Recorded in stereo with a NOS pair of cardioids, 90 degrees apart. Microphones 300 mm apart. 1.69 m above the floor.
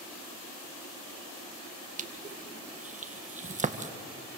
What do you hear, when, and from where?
2.0 s crushing: 25° right, 1.8 m